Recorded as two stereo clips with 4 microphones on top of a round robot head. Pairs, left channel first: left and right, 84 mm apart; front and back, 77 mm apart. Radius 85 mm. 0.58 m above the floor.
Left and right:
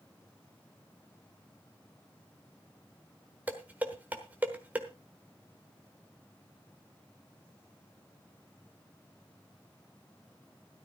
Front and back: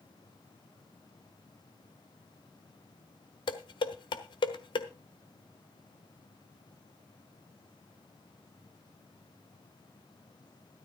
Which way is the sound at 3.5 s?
15° right.